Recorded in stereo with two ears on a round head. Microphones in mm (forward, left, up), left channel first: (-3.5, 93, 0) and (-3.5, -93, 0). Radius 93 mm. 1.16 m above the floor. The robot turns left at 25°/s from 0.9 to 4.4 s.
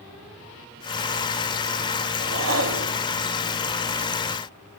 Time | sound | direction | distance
2.2 | a whoosh | 65° right (ahead or behind) | 1.5 m